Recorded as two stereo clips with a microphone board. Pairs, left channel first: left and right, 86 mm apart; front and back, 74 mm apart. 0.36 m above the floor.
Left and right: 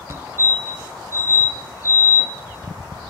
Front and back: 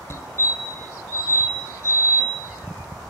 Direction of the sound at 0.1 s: 40° right.